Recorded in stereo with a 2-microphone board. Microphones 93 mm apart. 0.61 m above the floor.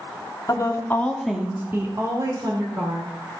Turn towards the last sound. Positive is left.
turn(degrees=-55)  # may be behind; listen again after turning